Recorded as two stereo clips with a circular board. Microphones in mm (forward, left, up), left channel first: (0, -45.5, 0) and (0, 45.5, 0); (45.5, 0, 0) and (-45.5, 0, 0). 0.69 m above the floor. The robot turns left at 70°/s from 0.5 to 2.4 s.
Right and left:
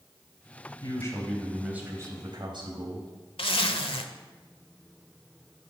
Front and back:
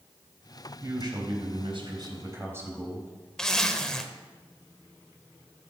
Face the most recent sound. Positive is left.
turn(degrees=-80)